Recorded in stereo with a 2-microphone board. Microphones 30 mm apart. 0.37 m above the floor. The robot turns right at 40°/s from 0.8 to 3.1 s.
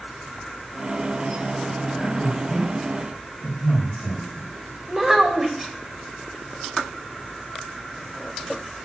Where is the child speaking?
10° right (ahead or behind), 0.9 m.